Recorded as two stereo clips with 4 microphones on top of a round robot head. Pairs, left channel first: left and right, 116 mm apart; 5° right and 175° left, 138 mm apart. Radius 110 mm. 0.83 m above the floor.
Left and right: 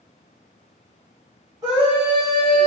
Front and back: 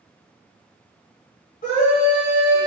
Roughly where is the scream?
Ahead.